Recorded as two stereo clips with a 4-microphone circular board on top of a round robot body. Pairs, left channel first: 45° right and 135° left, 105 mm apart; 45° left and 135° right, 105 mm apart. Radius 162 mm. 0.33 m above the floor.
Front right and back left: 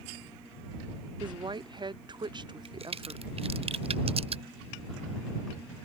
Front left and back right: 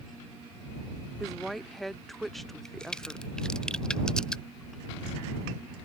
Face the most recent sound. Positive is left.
turn(degrees=125)